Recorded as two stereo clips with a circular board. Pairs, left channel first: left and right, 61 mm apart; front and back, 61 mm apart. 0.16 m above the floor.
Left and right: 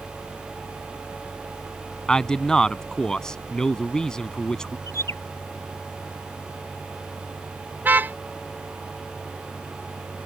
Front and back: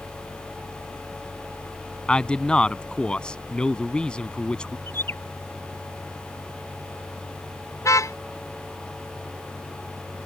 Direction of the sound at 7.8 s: 30° right.